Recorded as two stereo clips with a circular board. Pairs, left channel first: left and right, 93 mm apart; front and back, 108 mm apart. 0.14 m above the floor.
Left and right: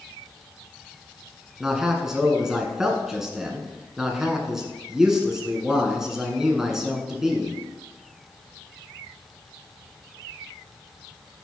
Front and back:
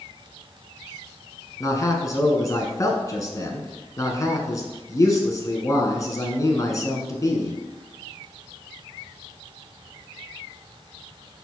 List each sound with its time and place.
1.6 s a man speaking: 10° right, 1.2 m